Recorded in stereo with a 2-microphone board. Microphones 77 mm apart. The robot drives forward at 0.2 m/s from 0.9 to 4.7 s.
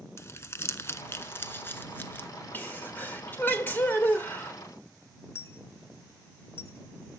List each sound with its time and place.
0.2 s crumpling: 35° left (ahead or behind), 0.7 m; by 2.3 s 25° left (ahead or behind), 0.9 m
2.5 s a sneeze: 25° left (ahead or behind), 1.5 m
5.3 s a dropped coin: 30° left (ahead or behind), 0.5 m